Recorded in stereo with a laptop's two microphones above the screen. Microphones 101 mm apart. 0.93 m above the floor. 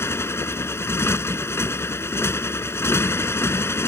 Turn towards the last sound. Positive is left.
turn(degrees=25)  # may be behind; listen again after turning